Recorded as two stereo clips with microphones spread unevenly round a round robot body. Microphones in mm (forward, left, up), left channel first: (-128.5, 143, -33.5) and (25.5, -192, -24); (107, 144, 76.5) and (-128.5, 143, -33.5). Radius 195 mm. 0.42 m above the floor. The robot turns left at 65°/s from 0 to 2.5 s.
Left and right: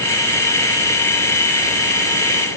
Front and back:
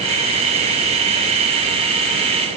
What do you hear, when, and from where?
Only background noise.